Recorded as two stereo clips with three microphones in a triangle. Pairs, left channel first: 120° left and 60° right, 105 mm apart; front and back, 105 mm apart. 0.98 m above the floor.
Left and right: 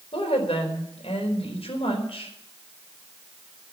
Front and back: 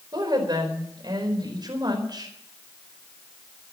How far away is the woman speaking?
About 4.5 m.